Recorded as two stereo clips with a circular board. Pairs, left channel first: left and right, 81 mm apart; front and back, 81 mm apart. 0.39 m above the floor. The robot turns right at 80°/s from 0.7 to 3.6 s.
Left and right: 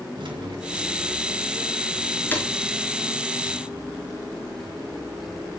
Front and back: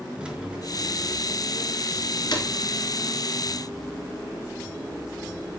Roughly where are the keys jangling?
Right.